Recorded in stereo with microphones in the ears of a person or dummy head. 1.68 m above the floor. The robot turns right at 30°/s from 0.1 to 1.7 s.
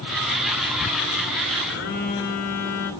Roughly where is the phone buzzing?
Left.